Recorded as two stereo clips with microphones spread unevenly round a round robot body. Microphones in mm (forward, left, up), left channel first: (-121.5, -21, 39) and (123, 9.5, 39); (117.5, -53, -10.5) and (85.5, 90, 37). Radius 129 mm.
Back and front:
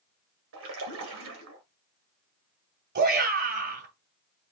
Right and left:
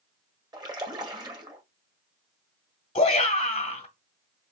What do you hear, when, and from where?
0.5 s a splash: 35° left, 1.9 m
3.0 s a shout: 35° right, 1.8 m